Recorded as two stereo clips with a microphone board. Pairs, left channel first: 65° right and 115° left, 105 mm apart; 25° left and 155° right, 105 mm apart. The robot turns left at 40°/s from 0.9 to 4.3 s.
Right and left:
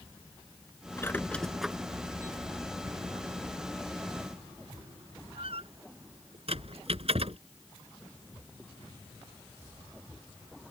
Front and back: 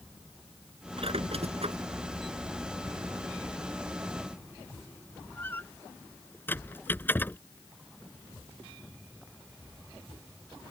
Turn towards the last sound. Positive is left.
turn(degrees=95)